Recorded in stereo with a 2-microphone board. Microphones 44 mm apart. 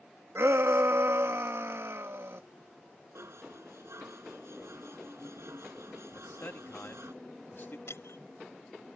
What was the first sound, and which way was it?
A shout, 80° right.